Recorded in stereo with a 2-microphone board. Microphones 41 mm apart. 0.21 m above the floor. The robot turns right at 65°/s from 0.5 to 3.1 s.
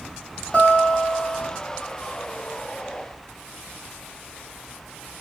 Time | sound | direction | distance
0.5 | a guitar | 120° left | 1.7 m